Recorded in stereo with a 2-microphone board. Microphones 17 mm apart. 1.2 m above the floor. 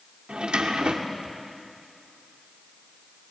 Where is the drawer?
75° right (ahead or behind), 2 m.